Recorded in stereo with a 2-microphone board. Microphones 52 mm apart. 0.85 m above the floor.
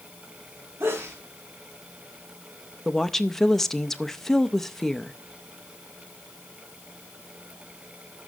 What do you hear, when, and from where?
0.8 s a sneeze: 65° right (ahead or behind), 1.7 m
2.9 s a woman speaking: 5° left (ahead or behind), 0.6 m